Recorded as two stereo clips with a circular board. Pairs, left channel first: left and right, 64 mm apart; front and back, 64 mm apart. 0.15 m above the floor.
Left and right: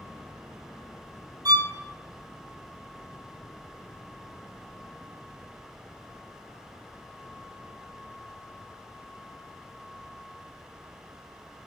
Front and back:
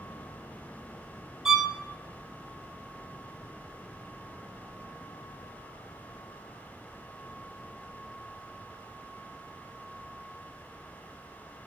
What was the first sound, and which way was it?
A violin, 95° right.